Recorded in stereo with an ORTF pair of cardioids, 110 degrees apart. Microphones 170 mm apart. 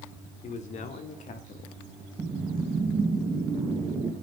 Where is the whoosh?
25° right, 4.5 m.